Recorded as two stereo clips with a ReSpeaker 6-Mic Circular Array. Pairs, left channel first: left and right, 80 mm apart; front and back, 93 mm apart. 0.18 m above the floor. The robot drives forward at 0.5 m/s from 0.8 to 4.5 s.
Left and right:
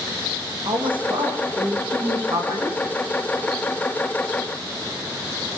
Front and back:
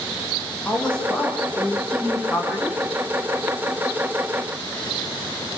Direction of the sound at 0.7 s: 80° right.